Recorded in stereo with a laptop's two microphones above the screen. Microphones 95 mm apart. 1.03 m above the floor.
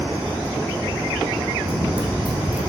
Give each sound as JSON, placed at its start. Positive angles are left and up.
{"t": 1.6, "sound": "running footsteps", "side_deg": -60, "distance_m": 3.0}